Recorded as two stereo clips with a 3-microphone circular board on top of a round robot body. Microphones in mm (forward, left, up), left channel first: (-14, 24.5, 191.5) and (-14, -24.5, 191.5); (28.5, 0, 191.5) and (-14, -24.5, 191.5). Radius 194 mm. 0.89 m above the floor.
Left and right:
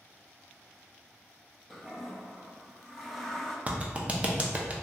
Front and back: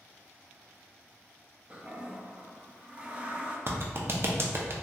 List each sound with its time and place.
1.7 s a toilet flushing: 175° left, 0.7 m
3.7 s a clap: 145° right, 0.6 m